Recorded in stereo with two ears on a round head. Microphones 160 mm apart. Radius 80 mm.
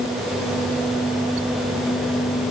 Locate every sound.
Only background noise.